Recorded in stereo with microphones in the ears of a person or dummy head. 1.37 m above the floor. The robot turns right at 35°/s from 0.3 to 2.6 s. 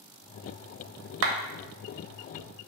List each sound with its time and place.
1.2 s a clap: 70° right (ahead or behind), 0.6 m